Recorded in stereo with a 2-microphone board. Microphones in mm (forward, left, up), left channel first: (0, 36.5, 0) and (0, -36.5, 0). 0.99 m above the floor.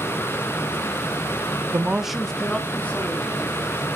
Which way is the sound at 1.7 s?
30° right (ahead or behind).